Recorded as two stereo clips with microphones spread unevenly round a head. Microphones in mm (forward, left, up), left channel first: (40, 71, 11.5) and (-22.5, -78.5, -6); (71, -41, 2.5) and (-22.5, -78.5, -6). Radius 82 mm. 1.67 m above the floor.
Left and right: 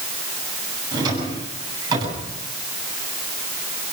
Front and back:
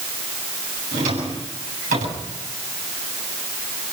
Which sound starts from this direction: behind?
A drawer, at 0.9 s.